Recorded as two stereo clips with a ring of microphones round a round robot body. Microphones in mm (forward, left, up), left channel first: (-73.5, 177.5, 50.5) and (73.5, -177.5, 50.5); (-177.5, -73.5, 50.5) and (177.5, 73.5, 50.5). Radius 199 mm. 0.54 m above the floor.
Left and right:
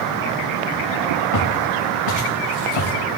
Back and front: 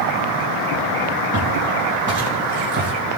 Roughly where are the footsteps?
Left.